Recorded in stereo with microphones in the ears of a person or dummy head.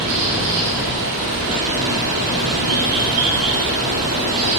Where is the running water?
50° right (ahead or behind), 1.5 m.